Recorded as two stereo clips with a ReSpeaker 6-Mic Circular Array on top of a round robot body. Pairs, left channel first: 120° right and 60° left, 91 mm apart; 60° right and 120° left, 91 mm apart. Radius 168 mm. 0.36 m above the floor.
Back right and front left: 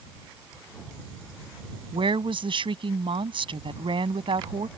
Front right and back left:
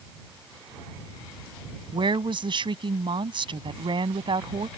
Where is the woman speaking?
90° left.